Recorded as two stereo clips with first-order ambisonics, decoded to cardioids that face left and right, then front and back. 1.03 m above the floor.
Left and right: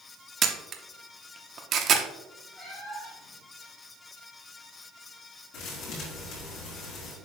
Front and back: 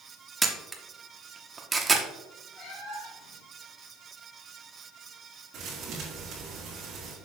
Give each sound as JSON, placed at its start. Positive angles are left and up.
{"t": 0.4, "sound": "a camera shutter", "azimuth_deg": -110, "distance_m": 0.7}
{"t": 2.5, "sound": "a cat meowing", "azimuth_deg": 20, "distance_m": 3.0}
{"t": 5.5, "sound": "a thud", "azimuth_deg": 125, "distance_m": 3.0}